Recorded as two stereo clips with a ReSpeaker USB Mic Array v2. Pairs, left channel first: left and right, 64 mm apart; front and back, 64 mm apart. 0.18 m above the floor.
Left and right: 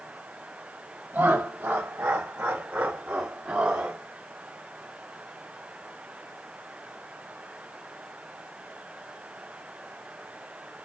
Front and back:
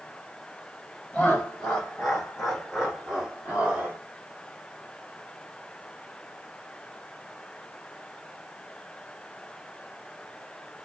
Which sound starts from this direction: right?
Laughter, at 1.1 s.